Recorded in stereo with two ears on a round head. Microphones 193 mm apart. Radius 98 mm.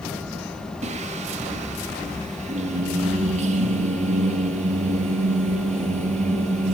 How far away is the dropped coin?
I don't hear a dropped coin.